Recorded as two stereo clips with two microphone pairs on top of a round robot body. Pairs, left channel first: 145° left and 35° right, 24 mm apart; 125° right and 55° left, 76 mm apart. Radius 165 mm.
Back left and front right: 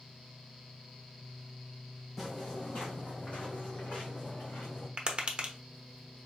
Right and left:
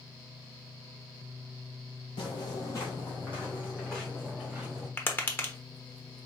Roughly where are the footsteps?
Behind right.